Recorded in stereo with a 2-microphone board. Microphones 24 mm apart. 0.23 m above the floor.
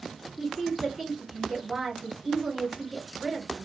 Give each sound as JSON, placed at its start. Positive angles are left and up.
{"t": 0.4, "sound": "a woman speaking", "side_deg": -15, "distance_m": 3.0}